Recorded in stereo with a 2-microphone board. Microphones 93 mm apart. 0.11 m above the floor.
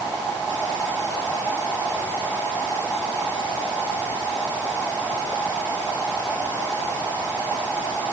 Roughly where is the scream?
I don't hear a scream.